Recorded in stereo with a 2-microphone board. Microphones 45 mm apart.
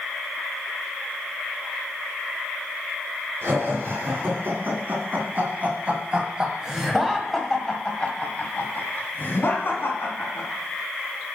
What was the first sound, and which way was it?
Laughter, 55° right (ahead or behind).